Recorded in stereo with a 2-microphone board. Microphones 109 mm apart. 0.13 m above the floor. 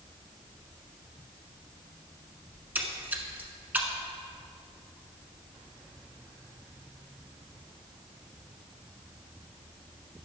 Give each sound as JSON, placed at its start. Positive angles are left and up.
{"t": 2.5, "sound": "a splash", "side_deg": -15, "distance_m": 1.0}